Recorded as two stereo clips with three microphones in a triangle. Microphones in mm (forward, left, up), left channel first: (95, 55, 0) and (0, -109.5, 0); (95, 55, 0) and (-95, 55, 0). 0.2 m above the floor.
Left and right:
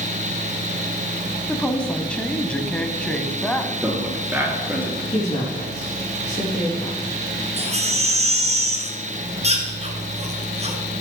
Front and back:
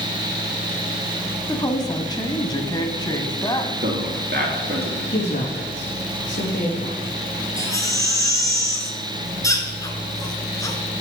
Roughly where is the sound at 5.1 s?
Ahead.